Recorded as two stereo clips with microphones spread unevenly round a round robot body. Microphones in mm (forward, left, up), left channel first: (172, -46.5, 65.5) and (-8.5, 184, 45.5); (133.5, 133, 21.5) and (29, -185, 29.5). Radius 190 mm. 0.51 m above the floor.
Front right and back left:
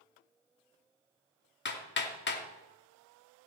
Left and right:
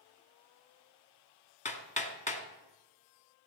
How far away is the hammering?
About 2 m.